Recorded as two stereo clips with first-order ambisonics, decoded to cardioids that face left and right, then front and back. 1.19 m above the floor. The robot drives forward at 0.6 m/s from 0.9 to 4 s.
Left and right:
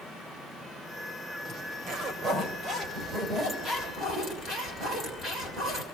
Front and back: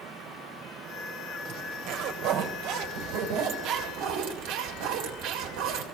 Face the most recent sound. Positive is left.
turn(degrees=-160)